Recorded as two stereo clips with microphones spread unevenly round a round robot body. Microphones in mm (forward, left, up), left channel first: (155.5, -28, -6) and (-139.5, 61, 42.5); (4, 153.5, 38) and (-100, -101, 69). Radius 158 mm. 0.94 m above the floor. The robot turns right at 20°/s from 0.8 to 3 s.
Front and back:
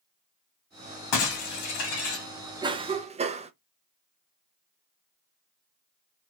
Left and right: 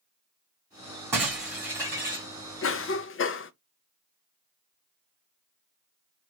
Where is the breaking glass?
30° right, 2.5 m; by 2.3 s 10° right, 2.5 m.